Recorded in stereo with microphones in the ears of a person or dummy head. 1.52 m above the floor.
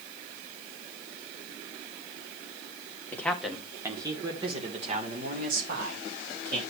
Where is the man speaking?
15° left (ahead or behind), 1.2 m; by 6.6 s 55° right (ahead or behind), 2.5 m.